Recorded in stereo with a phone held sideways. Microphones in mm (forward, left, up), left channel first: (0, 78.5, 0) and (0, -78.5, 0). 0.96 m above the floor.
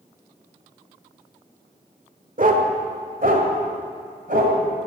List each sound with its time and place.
2.4 s a dog barking: 60° right (ahead or behind), 1.5 m; by 4.6 s 65° right (ahead or behind), 3 m